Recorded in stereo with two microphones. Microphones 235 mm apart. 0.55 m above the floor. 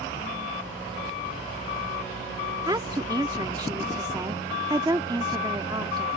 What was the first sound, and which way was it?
A woman speaking, 20° right (ahead or behind).